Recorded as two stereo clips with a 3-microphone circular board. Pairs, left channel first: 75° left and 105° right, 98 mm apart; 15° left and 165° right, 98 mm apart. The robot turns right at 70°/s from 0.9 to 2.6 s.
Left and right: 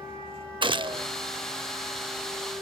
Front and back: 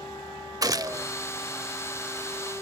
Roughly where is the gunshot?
Behind right.